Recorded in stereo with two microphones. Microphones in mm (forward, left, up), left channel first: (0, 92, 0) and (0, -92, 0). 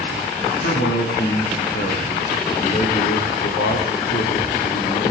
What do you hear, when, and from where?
0.5 s a man speaking: 75° left (ahead or behind), 9.5 m